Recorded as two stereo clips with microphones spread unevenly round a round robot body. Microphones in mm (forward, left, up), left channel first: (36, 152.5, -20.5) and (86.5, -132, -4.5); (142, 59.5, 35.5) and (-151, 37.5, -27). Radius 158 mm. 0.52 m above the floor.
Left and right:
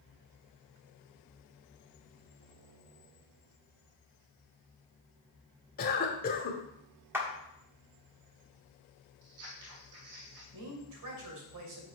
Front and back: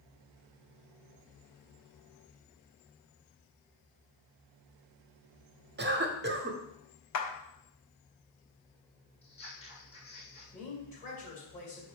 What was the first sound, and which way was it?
A cough, 155° left.